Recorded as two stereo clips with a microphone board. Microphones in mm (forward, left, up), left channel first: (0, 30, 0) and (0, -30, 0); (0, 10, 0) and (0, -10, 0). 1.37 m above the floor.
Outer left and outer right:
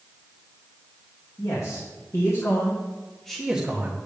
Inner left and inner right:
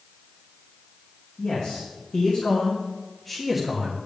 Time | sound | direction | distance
1.4 | a man speaking | 80° left | 2.5 m